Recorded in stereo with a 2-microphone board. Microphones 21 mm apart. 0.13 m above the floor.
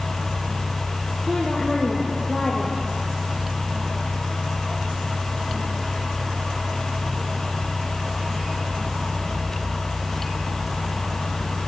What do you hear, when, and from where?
1.3 s a woman speaking: 20° right (ahead or behind), 5 m